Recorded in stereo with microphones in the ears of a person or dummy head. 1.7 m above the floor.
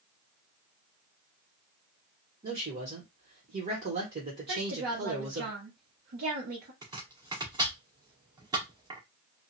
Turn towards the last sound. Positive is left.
turn(degrees=-20)  # may be behind; listen again after turning